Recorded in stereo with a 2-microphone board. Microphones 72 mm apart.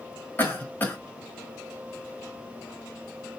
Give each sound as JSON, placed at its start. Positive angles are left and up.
{"t": 0.4, "sound": "a cough", "side_deg": 25, "distance_m": 1.1}